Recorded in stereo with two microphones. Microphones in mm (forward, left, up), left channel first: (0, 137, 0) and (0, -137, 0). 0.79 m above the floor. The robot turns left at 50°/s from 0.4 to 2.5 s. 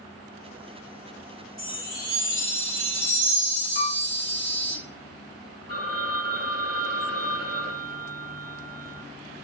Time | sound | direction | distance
1.6 | a chime | 55° left | 2 m
3.8 | a piano | 40° left (ahead or behind) | 1.0 m
5.7 | a phone ringing | 55° right (ahead or behind) | 1.1 m